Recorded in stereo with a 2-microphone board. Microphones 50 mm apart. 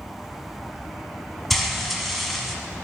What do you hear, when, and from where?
1.5 s frying: centre (ahead or behind), 1.3 m